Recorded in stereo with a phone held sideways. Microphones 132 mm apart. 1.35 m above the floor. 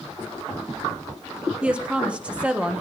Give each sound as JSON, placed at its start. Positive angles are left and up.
{"t": 1.6, "sound": "a woman speaking", "side_deg": -10, "distance_m": 1.2}